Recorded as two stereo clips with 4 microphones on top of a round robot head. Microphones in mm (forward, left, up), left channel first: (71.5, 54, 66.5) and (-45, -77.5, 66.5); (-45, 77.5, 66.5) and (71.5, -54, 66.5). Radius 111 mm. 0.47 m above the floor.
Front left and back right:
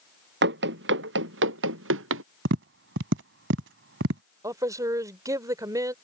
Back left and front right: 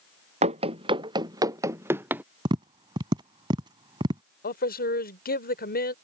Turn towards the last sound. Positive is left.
turn(degrees=160)